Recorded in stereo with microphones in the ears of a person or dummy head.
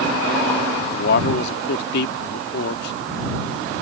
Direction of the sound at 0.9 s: 65° left (ahead or behind).